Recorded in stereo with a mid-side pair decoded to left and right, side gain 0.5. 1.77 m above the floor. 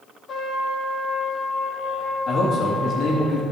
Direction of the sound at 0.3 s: 50° left.